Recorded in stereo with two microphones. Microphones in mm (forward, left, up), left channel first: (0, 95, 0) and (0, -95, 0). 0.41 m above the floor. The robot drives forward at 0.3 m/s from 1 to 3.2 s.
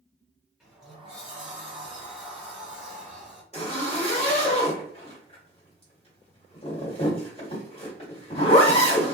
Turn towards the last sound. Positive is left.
turn(degrees=30)  # may be behind; listen again after turning